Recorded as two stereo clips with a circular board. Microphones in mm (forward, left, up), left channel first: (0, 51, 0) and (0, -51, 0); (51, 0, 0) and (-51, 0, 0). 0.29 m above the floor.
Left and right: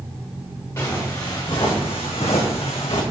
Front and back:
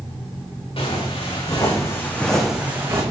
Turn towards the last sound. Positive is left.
turn(degrees=115)